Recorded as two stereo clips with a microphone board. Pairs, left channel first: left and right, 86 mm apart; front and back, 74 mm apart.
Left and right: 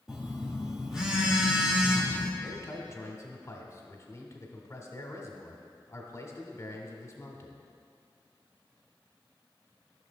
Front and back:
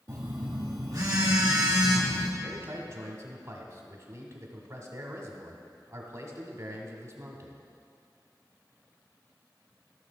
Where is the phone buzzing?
170° right, 1.6 m.